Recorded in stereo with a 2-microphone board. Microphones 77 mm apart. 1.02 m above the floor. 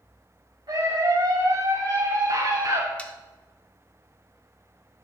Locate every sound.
0.7 s a scream: 60° right (ahead or behind), 3 m
3.0 s sawing: 15° left (ahead or behind), 0.8 m